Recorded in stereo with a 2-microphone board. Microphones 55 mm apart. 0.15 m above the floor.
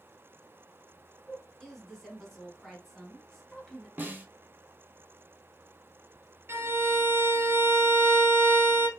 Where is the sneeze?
No sneeze in this recording.